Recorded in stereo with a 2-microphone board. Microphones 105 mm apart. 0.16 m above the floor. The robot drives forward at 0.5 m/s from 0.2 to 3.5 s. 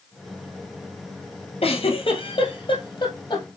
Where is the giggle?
60° left (ahead or behind), 1.4 m; by 3.5 s 40° left (ahead or behind), 1.9 m.